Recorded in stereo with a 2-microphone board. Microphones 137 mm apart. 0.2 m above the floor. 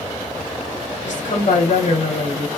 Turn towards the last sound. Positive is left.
turn(degrees=65)  # may be behind; listen again after turning